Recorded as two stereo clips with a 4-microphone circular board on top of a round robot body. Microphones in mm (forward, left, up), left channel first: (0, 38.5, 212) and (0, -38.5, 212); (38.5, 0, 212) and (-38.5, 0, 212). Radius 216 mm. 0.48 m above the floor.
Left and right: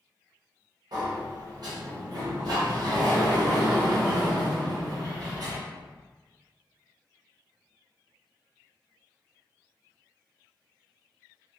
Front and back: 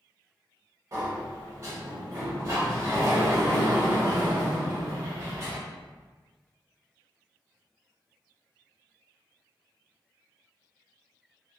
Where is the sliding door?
125° right, 0.7 m.